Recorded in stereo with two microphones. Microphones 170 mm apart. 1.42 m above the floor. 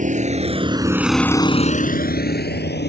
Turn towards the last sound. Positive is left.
turn(degrees=80)